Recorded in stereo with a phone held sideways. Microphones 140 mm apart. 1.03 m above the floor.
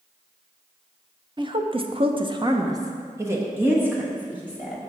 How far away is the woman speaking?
About 0.6 m.